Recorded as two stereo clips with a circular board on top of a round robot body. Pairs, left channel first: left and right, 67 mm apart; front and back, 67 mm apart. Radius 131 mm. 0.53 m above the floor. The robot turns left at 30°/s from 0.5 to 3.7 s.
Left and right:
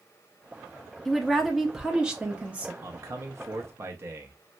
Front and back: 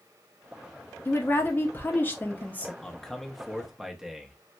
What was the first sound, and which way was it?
A woman speaking, 5° left.